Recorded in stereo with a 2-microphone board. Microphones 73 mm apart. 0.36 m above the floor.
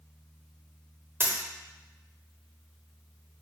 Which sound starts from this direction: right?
A dropped coin, at 1.2 s.